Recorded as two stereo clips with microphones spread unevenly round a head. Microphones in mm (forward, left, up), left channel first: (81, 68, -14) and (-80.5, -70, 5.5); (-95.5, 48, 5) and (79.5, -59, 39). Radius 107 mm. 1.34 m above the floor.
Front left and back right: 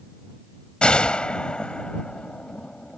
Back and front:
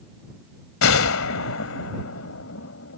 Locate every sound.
0.8 s a gunshot: 130° left